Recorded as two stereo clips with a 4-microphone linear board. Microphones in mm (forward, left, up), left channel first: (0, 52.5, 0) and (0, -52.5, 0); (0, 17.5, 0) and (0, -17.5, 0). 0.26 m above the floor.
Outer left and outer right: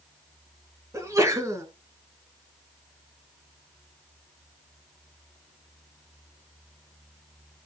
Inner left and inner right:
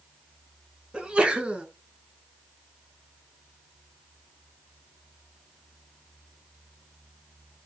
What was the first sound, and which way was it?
A sneeze, 30° right (ahead or behind).